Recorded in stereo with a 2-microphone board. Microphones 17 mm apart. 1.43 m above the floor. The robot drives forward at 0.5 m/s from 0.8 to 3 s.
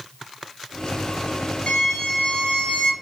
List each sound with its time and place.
1.7 s a violin: 85° left, 1.8 m; by 2.9 s 70° left (ahead or behind), 2.0 m